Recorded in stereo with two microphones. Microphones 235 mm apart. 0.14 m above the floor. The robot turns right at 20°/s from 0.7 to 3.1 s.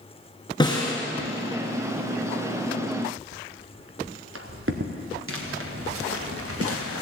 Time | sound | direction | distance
0.6 | a snare drum | 20° left (ahead or behind) | 2.5 m
3.3 | footsteps | 80° right | 1.6 m
5.3 | footsteps | 60° right (ahead or behind) | 3.5 m